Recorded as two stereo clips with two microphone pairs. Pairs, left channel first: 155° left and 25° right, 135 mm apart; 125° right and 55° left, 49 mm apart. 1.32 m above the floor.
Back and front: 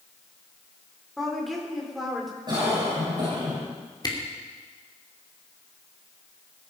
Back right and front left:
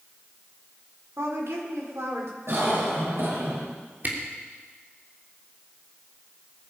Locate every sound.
1.2 s a woman speaking: 65° left, 4 m
2.5 s a cough: 30° left, 6.5 m
4.0 s a camera shutter: 100° left, 3 m